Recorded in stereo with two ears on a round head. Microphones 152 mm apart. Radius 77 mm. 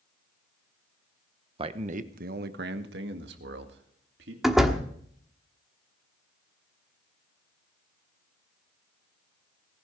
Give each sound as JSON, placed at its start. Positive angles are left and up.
{"t": 1.6, "sound": "a man speaking", "side_deg": -30, "distance_m": 0.9}
{"t": 4.4, "sound": "a door slam", "side_deg": 0, "distance_m": 1.3}